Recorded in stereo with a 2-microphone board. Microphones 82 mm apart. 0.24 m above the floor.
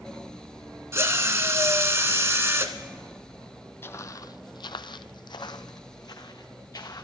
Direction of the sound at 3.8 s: 30° left (ahead or behind).